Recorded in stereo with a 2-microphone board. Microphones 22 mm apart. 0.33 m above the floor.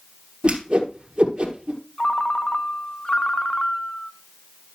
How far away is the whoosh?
About 1.4 m.